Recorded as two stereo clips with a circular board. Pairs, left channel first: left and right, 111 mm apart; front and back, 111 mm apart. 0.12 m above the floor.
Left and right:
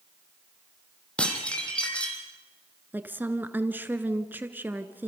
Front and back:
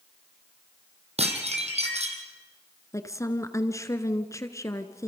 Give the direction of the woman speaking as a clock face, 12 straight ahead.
1 o'clock.